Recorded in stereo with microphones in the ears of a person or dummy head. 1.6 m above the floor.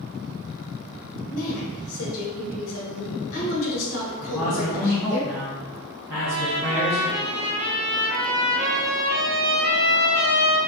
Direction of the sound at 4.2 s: 15° right (ahead or behind).